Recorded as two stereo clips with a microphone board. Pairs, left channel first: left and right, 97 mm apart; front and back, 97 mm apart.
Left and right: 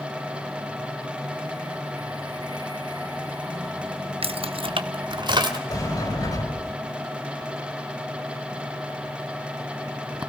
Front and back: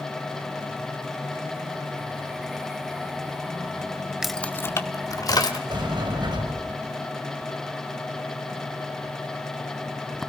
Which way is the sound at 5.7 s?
140° left.